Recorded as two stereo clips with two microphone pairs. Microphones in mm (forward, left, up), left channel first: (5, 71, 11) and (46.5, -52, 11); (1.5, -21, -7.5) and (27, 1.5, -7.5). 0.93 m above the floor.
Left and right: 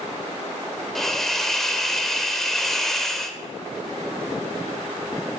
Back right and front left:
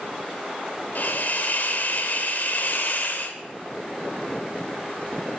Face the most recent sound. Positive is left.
turn(degrees=-165)